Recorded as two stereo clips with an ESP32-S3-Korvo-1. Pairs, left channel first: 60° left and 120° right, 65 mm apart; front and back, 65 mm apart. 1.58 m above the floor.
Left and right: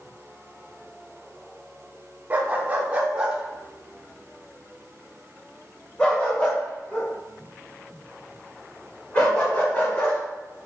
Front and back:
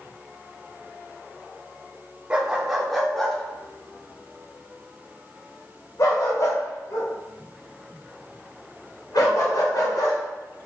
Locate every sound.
2.3 s a dog barking: 125° right, 1.3 m; by 10.2 s straight ahead, 4 m